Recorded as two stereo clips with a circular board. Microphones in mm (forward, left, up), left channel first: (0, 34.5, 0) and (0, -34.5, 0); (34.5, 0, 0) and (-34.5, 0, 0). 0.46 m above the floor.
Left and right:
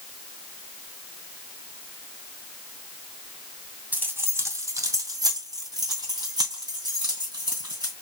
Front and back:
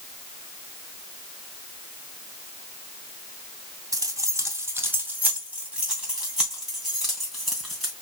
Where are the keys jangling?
150° right, 1.6 m; by 7.9 s 85° right, 4.5 m.